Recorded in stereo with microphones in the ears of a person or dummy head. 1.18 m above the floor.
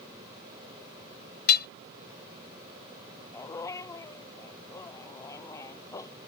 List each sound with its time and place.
1.5 s hammering: 60° left (ahead or behind)
3.3 s a dog barking: 15° left (ahead or behind)